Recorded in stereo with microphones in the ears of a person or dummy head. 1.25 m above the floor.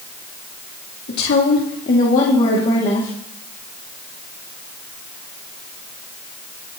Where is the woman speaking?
65° left (ahead or behind), 2.5 m; by 3.1 s 25° left (ahead or behind), 2.5 m.